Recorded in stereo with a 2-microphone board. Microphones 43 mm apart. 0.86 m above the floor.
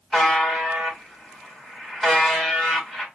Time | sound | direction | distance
0.1 | a buzzer | centre (ahead or behind) | 1.2 m